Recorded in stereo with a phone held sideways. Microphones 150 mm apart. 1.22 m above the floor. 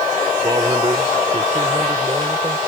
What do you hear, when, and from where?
0.4 s a man speaking: 30° right (ahead or behind); by 2.6 s 35° right (ahead or behind)